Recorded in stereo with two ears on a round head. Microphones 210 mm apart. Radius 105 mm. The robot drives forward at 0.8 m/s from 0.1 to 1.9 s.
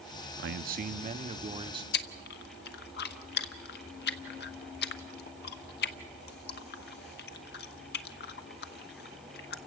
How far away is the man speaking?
About 0.8 m.